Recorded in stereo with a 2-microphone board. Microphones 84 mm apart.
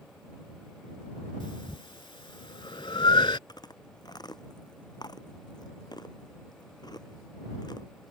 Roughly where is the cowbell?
I don't hear a cowbell.